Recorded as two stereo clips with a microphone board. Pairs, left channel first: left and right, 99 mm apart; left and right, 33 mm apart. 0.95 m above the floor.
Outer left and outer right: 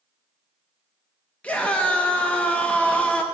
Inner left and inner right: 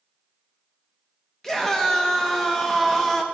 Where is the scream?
15° left (ahead or behind), 0.8 m.